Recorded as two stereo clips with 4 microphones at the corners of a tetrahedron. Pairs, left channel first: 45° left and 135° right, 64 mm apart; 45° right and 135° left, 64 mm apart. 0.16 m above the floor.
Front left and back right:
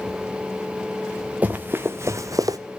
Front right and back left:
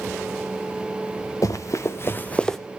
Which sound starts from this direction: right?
Running footsteps, at 1.4 s.